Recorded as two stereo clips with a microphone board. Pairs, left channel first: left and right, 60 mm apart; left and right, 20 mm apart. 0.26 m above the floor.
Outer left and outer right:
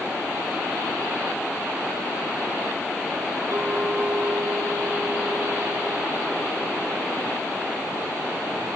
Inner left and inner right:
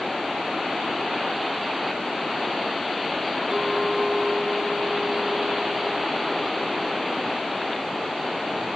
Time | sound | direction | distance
3.5 | a clink | 55° right (ahead or behind) | 5.5 m